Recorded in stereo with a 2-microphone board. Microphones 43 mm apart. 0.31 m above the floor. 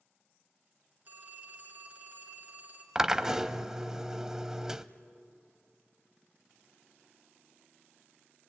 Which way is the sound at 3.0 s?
15° right (ahead or behind).